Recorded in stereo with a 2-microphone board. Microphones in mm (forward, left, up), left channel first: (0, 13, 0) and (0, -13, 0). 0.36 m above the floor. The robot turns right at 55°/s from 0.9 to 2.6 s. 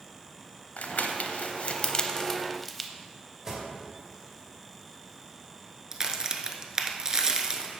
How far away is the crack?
About 0.8 m.